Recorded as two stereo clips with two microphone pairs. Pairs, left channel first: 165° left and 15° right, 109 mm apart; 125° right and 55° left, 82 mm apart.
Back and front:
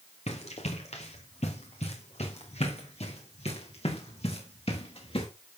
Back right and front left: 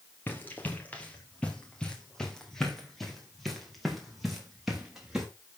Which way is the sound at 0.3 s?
170° left.